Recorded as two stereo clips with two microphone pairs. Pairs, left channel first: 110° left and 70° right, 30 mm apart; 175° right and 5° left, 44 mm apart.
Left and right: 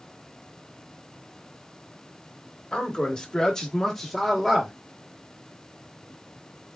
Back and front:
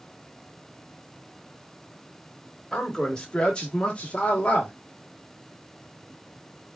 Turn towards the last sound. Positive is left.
turn(degrees=-155)